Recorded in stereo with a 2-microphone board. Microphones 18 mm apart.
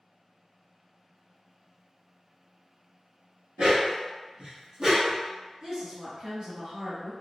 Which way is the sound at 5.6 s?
35° right (ahead or behind).